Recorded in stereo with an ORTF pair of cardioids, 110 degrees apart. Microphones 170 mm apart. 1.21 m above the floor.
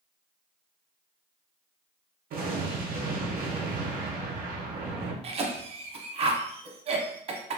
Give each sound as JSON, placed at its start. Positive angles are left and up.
{"t": 2.3, "sound": "an explosion", "azimuth_deg": -60, "distance_m": 0.8}
{"t": 5.2, "sound": "a cough", "azimuth_deg": -35, "distance_m": 0.8}